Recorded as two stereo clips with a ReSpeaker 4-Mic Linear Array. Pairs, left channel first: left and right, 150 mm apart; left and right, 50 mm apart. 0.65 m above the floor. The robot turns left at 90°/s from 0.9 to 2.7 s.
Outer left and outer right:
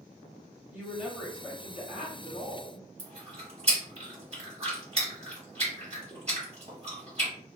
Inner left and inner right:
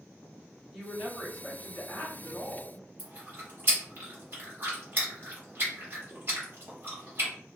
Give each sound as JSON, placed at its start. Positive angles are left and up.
{"t": 0.7, "sound": "a woman speaking", "azimuth_deg": -165, "distance_m": 1.6}
{"t": 3.0, "sound": "chewing", "side_deg": -45, "distance_m": 1.6}